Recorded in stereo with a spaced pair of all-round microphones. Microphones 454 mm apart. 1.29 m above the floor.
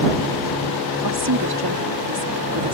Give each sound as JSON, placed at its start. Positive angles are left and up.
{"t": 1.0, "sound": "a woman speaking", "side_deg": -60}